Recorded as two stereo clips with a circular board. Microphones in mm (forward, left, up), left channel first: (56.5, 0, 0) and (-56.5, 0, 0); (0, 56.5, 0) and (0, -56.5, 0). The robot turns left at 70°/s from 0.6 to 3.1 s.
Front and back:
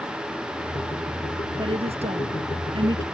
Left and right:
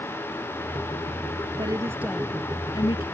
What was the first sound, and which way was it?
A woman speaking, 135° right.